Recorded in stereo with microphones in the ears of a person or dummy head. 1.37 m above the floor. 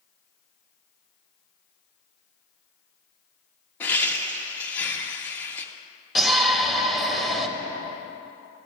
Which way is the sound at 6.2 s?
5° left (ahead or behind).